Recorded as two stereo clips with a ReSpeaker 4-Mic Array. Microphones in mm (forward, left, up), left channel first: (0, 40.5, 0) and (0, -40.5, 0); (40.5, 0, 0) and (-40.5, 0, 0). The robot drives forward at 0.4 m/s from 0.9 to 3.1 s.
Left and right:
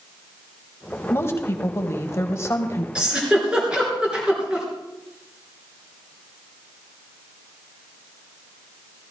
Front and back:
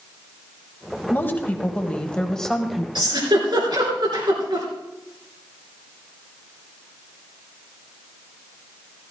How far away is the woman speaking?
About 1.5 m.